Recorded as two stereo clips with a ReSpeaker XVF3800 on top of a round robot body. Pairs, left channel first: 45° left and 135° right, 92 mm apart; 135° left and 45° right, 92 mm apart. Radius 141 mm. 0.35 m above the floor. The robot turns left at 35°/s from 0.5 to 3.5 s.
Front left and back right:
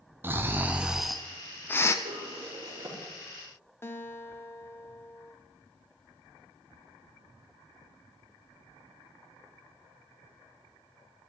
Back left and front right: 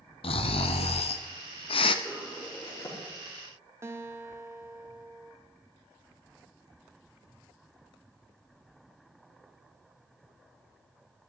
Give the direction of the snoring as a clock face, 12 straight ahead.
7 o'clock.